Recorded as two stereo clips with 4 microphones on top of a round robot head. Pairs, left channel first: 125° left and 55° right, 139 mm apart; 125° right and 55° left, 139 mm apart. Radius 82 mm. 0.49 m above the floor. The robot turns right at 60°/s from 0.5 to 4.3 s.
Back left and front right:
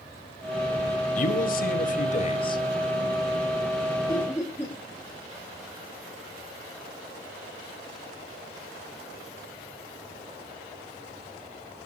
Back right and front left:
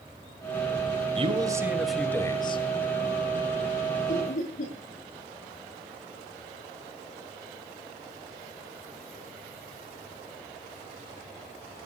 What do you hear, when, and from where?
1.1 s a man speaking: 100° left, 2.5 m; by 2.6 s 175° right, 2.5 m
4.1 s laughter: 175° right, 8 m; by 4.7 s 160° right, 8 m